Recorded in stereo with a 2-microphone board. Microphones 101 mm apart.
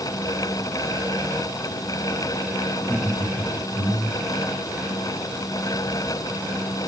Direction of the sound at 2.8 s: 20° left (ahead or behind).